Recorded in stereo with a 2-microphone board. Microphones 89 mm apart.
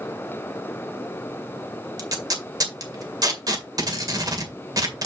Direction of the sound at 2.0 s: 45° right (ahead or behind).